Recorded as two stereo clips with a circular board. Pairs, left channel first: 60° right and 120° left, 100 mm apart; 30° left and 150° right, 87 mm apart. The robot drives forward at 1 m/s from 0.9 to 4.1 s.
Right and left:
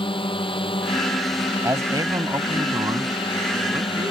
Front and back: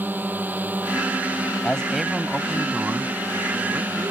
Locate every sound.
0.0 s a drone: 80° right
1.6 s a man speaking: 95° left; by 4.1 s 165° left